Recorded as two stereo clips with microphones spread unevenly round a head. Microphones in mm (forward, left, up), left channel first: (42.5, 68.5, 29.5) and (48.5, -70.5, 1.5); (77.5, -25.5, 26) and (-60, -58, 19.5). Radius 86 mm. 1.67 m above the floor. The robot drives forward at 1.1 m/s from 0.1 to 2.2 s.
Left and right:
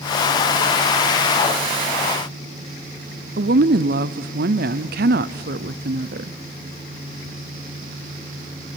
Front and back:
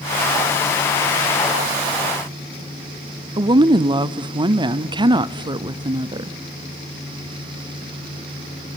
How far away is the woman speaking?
About 0.6 m.